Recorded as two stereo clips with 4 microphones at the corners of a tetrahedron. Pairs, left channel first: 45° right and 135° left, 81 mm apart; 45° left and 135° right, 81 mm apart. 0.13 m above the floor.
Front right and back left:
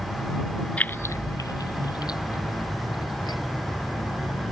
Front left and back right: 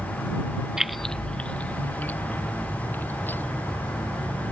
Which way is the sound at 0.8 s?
65° right.